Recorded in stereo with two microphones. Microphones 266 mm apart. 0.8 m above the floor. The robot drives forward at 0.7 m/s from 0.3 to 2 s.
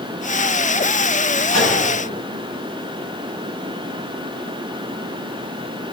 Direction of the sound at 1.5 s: 65° right (ahead or behind).